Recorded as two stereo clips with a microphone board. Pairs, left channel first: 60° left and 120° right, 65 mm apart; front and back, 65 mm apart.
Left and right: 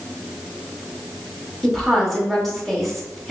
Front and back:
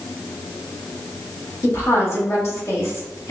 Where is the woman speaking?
25° right, 1.0 m.